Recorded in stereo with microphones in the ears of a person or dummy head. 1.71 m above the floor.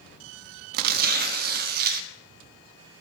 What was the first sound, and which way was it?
Tearing paper, 50° right (ahead or behind).